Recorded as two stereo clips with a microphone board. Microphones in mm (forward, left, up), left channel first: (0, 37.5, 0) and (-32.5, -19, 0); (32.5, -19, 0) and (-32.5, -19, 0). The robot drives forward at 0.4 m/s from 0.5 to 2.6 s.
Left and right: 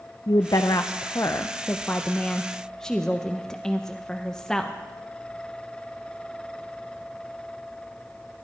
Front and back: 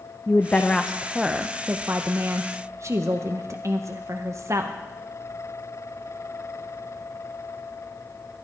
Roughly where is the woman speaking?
Ahead left.